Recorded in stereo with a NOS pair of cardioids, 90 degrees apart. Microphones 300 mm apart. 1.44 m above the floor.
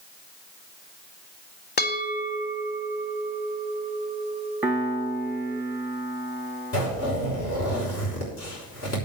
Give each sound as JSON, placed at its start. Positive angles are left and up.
{"t": 1.8, "sound": "a bell", "azimuth_deg": 35, "distance_m": 1.8}
{"t": 4.6, "sound": "a piano", "azimuth_deg": -5, "distance_m": 1.1}
{"t": 6.7, "sound": "a zipper", "azimuth_deg": 55, "distance_m": 5.5}